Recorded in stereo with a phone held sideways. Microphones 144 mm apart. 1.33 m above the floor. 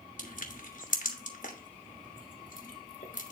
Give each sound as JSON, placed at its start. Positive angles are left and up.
{"t": 0.2, "sound": "crushing", "side_deg": 65, "distance_m": 1.3}